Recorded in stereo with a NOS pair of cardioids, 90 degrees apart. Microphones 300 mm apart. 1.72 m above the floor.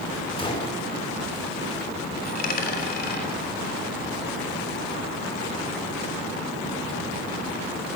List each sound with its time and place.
0.4 s a gunshot: 20° left, 4.5 m
2.2 s a dropped coin: 30° left, 3 m